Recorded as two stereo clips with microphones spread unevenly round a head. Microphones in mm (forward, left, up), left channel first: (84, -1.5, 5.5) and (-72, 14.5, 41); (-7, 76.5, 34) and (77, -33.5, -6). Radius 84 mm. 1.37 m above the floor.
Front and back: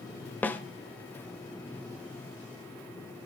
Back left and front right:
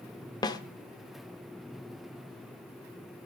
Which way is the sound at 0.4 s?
80° left.